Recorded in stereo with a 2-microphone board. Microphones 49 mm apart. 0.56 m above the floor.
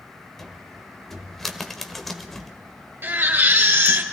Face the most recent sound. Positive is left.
turn(degrees=-50)  # may be behind; listen again after turning